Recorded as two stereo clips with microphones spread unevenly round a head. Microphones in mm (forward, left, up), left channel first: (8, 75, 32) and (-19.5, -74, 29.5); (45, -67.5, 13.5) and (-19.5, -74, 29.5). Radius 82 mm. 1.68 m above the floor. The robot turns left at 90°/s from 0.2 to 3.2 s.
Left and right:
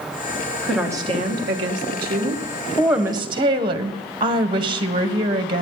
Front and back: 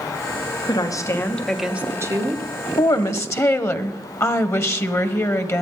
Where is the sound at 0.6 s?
Straight ahead, 2.0 m; by 2.5 s 165° right, 2.0 m.